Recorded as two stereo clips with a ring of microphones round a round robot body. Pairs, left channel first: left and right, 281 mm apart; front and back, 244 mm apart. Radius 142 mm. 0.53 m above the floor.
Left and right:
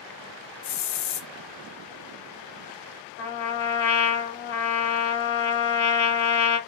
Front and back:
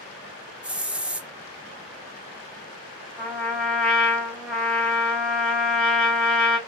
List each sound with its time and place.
0.6 s a hiss: 95° left, 0.7 m
3.2 s a trumpet: 85° left, 1.7 m